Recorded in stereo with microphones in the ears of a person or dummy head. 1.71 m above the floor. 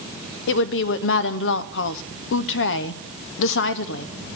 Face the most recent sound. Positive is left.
turn(degrees=70)  # may be behind; listen again after turning